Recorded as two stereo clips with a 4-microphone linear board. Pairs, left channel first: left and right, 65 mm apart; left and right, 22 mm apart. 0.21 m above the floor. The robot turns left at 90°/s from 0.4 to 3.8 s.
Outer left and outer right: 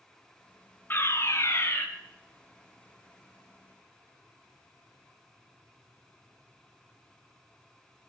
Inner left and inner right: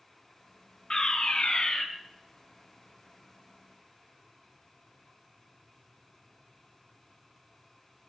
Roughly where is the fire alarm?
Behind left.